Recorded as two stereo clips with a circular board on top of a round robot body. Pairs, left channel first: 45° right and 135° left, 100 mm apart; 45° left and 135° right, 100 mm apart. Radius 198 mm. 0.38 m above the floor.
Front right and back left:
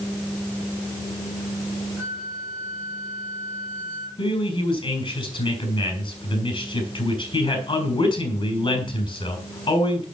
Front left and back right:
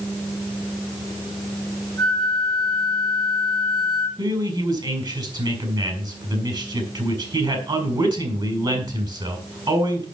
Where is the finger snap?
No finger snap in this recording.